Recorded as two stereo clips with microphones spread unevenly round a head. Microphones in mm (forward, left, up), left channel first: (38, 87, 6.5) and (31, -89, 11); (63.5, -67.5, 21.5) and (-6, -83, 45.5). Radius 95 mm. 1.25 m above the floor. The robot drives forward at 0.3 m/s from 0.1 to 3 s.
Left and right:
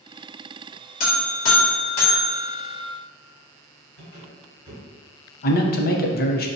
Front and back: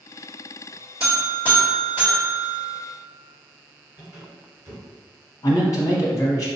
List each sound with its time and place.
1.0 s a buzzer: 90° left, 1.1 m; by 2.8 s 120° left, 1.2 m
4.0 s a squeak: 140° left, 1.9 m
5.4 s a man speaking: 55° left, 0.6 m